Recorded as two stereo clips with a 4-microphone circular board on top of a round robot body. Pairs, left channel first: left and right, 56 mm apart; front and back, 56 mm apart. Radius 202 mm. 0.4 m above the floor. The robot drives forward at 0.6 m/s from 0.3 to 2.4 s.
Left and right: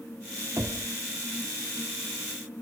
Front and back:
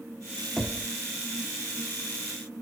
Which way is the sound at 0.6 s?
90° right.